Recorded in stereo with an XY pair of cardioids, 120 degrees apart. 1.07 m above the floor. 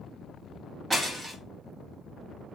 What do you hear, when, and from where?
0.9 s breaking glass: 20° right, 1.3 m